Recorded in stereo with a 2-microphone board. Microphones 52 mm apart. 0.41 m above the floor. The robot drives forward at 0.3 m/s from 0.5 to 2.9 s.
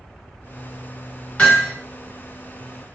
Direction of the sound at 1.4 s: 25° left (ahead or behind).